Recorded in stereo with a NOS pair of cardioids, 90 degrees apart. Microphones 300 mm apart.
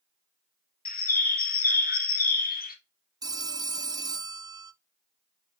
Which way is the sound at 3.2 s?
15° right.